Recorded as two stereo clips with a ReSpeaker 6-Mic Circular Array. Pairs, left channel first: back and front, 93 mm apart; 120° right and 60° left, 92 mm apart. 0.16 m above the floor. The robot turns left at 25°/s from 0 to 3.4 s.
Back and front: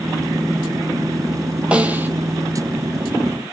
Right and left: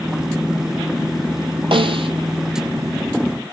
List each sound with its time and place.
1.7 s a snare drum: 80° left, 0.9 m; by 2.1 s 70° left, 0.9 m